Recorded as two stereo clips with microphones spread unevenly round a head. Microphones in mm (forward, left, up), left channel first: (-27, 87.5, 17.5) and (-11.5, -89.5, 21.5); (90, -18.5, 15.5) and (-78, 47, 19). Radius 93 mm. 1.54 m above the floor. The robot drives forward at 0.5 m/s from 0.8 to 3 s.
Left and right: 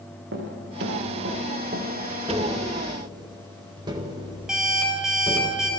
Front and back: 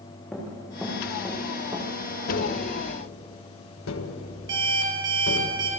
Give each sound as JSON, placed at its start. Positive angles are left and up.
{"t": 0.3, "sound": "running footsteps", "azimuth_deg": -110, "distance_m": 5.5}
{"t": 2.3, "sound": "tapping", "azimuth_deg": -15, "distance_m": 1.9}
{"t": 4.5, "sound": "an alarm clock", "azimuth_deg": -170, "distance_m": 5.0}